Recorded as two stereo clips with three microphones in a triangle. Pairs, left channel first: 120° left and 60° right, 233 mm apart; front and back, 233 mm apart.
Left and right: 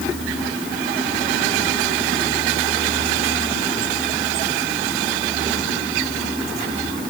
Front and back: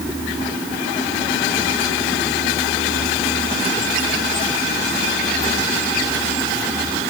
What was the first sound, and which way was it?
Only background noise.